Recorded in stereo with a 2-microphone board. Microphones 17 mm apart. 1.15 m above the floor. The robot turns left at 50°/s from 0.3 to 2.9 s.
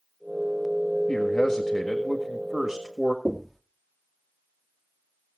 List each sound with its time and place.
1.1 s a man speaking: 70° left, 1.6 m; by 3.1 s 20° right, 1.6 m
3.2 s knocking: 15° left (ahead or behind), 1.4 m